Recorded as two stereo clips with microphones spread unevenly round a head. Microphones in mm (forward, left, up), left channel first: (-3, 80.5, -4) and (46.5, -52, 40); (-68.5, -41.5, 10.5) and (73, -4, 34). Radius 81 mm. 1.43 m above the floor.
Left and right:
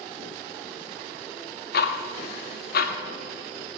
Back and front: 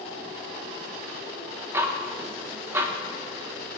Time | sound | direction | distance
1.7 | ticking | 90° left | 1.0 m